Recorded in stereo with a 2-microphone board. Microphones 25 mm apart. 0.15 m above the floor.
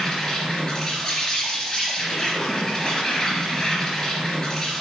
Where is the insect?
25° left (ahead or behind), 3 m.